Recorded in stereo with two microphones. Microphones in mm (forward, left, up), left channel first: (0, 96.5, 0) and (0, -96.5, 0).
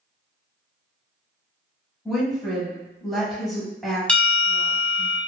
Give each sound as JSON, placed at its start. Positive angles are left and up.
{"t": 2.0, "sound": "a woman speaking", "side_deg": 0, "distance_m": 1.1}
{"t": 4.1, "sound": "a bell", "side_deg": 5, "distance_m": 0.6}